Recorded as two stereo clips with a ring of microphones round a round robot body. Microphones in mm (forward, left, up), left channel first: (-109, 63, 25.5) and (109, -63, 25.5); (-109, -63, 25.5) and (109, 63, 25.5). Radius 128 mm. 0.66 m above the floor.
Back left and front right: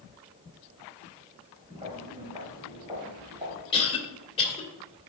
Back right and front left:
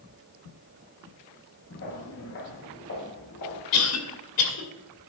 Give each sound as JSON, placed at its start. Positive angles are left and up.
{"t": 1.7, "sound": "footsteps", "azimuth_deg": -100, "distance_m": 3.5}
{"t": 3.7, "sound": "a cough", "azimuth_deg": -140, "distance_m": 2.5}